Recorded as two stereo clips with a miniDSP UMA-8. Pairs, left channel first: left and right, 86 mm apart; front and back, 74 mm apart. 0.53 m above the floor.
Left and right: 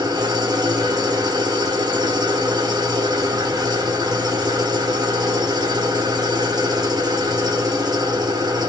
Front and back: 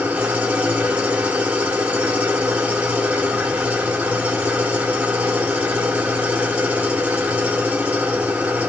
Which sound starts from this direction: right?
An engine running, at 0.0 s.